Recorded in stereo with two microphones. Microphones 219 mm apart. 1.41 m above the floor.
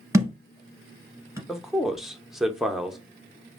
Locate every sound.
0.1 s a thud: 15° right (ahead or behind), 1.4 m
1.5 s a man speaking: centre (ahead or behind), 0.7 m